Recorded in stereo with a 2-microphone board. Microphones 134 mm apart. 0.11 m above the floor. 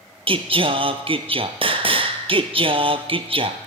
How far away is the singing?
About 0.7 m.